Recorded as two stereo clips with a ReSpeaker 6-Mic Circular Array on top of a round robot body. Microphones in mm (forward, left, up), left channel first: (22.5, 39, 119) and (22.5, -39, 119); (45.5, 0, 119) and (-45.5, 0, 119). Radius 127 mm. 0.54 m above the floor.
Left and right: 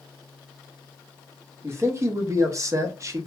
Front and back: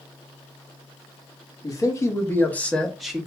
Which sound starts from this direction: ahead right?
A man speaking, at 1.6 s.